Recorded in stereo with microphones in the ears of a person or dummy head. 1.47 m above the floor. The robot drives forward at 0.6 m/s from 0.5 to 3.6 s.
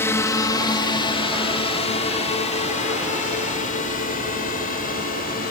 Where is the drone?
10° left (ahead or behind); by 5.5 s 45° left (ahead or behind).